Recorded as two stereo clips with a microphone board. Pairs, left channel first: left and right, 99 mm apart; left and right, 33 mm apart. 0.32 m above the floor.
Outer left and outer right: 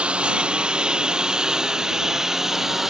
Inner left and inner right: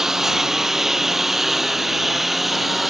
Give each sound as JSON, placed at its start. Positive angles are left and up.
{"t": 0.0, "sound": "a lawn mower", "side_deg": -10}